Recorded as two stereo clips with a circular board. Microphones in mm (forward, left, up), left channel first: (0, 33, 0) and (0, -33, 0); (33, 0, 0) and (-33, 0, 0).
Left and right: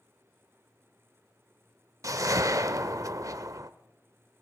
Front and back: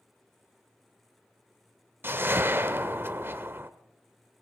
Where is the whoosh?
125° right, 0.6 m.